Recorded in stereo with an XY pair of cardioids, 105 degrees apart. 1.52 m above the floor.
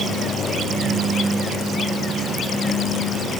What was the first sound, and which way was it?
Only background noise.